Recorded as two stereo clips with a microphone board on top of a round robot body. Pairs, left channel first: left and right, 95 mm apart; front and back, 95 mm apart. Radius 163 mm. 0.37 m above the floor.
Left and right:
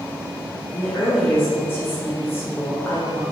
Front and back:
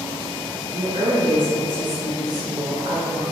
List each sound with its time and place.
0.7 s a woman speaking: 155° left, 1.6 m